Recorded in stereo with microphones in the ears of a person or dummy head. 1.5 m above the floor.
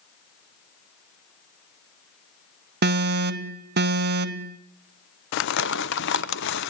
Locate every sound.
2.8 s an alarm: 60° right (ahead or behind), 0.8 m
5.3 s crumpling: 65° left (ahead or behind), 0.7 m